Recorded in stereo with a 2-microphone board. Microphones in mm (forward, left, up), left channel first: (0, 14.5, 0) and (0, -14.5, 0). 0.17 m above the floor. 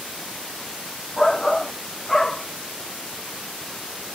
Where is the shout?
15° left (ahead or behind).